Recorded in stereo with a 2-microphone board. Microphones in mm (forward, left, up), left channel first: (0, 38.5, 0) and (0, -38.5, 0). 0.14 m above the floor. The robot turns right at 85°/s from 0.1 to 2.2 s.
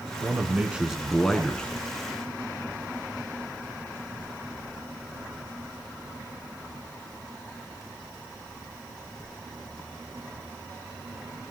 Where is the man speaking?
25° right (ahead or behind), 1.6 m; by 1.7 s 15° left (ahead or behind), 1.6 m.